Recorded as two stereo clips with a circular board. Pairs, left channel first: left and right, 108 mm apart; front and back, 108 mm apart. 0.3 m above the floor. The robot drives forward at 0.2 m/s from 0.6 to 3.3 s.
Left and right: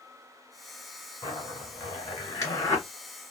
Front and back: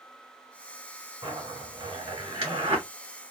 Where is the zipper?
150° left, 2 m; by 2.9 s 155° left, 2.5 m.